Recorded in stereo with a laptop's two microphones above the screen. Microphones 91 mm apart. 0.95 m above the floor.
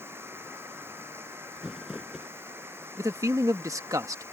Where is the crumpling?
5° right (ahead or behind).